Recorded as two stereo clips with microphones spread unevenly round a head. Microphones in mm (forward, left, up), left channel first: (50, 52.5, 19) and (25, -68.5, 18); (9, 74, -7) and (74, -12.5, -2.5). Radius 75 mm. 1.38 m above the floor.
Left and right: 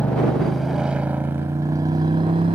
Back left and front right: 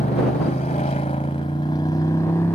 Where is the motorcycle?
160° left; by 2.5 s 160° right.